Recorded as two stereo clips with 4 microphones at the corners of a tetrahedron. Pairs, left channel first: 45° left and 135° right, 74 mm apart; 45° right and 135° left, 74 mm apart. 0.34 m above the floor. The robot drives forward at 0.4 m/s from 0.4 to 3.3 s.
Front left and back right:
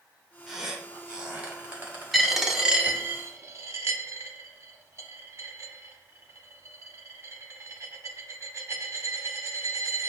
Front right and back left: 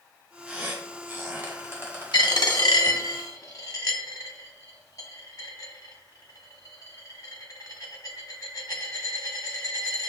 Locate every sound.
0.5 s a squeak: 145° left, 0.7 m; by 2.6 s 175° left, 1.2 m
2.1 s a dropped coin: 45° right, 0.7 m; by 10.1 s 85° right, 0.5 m